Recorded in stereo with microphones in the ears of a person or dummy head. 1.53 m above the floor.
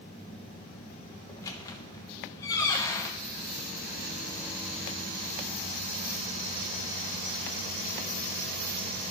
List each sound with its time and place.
1.3 s a squeak: 15° left (ahead or behind), 0.9 m